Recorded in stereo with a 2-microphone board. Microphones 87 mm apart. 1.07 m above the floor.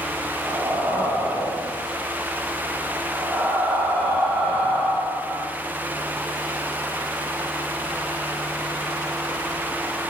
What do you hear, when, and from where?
0.4 s breathing: 30° right (ahead or behind), 5.5 m